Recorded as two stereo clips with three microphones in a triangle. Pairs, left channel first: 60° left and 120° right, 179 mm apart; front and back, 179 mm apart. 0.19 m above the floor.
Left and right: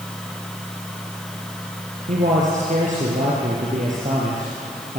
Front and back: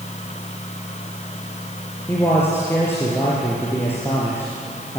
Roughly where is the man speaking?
Right.